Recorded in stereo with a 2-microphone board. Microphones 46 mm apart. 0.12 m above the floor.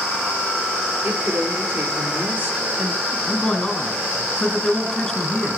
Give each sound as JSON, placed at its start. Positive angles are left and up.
{"t": 1.0, "sound": "a woman speaking", "side_deg": -50, "distance_m": 2.5}
{"t": 3.3, "sound": "a man speaking", "side_deg": 10, "distance_m": 1.8}